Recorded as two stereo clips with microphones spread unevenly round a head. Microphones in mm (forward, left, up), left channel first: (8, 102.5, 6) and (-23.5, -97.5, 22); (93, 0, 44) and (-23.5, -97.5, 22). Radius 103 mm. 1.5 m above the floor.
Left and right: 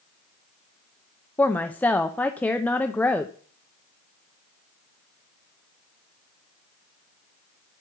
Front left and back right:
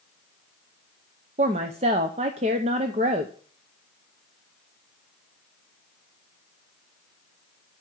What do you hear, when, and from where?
1.4 s a woman speaking: 165° left, 0.7 m